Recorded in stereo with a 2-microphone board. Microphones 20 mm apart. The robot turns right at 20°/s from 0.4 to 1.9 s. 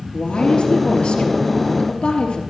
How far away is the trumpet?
I don't hear a trumpet.